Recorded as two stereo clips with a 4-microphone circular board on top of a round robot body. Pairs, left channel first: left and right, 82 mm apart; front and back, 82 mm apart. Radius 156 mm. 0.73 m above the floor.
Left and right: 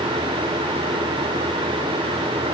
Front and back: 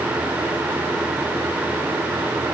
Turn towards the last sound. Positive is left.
No sound to turn to.